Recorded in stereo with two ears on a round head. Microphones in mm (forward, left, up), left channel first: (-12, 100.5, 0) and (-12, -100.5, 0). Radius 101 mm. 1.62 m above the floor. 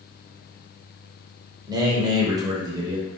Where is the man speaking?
20° right (ahead or behind), 0.7 m.